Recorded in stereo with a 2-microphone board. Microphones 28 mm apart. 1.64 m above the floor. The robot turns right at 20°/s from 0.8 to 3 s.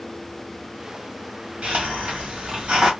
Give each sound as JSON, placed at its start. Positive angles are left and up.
{"t": 1.6, "sound": "a hiss", "side_deg": -55, "distance_m": 2.0}